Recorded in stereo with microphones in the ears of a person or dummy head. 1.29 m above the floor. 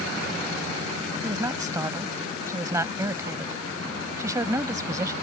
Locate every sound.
1.2 s a woman speaking: 20° right (ahead or behind)